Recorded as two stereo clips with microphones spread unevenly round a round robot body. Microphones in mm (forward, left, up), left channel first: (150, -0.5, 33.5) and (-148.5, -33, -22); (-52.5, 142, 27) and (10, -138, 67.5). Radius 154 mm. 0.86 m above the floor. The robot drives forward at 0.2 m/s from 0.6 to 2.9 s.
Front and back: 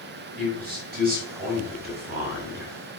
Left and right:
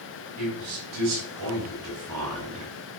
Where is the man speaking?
110° right, 4.5 m; by 2.7 s 115° right, 4.5 m.